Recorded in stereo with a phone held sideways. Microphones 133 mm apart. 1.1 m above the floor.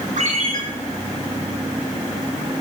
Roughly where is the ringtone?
Right.